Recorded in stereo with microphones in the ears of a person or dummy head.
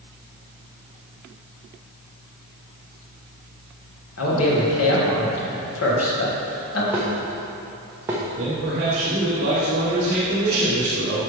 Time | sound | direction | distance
4.2 | a man speaking | 85° left | 1.8 m
6.9 | dishes clattering | 10° right (ahead or behind) | 0.8 m
8.4 | a man speaking | 55° right (ahead or behind) | 1.4 m